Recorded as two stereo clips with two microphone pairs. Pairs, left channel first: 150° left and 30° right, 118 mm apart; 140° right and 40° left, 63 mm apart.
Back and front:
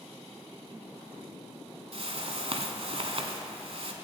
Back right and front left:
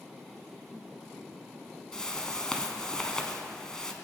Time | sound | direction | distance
1.9 | a whoosh | 60° right | 1.1 m